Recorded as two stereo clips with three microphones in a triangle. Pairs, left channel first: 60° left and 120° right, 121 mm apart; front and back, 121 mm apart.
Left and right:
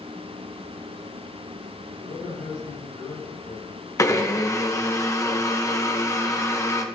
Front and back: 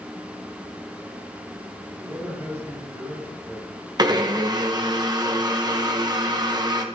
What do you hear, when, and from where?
2.0 s a man speaking: 105° left, 6.5 m
4.0 s a blender: 125° left, 1.2 m